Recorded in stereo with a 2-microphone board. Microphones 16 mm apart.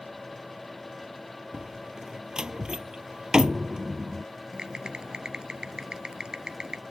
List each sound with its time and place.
1.5 s a door slam: 55° right (ahead or behind)
4.5 s typing on a keyboard: 60° right (ahead or behind)